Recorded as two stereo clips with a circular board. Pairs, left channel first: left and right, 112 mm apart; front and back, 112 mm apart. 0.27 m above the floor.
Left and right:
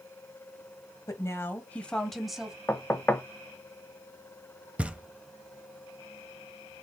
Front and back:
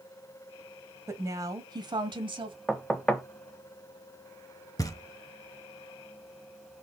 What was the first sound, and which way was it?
A woman speaking, 130° left.